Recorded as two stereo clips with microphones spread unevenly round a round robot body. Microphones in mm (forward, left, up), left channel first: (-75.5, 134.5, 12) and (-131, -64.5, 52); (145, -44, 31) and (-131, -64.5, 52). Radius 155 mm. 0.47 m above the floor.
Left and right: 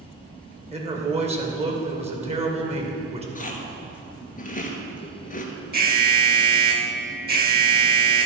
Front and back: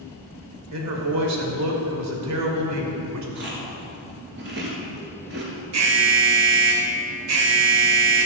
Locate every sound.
0.7 s a man speaking: 170° right, 2.5 m
3.4 s chewing: 125° left, 2 m
5.7 s an alarm: 150° right, 2.0 m